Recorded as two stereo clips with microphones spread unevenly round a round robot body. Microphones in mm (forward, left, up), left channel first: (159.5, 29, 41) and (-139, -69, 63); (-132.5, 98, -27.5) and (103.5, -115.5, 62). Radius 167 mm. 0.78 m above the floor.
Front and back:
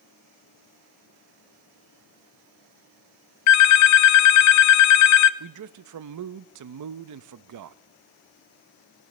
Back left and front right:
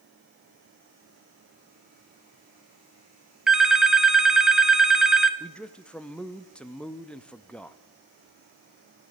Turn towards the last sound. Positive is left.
turn(degrees=-150)